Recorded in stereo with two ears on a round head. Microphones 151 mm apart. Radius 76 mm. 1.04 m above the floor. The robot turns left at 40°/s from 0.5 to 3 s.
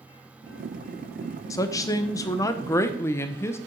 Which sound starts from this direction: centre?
A woman speaking, at 1.5 s.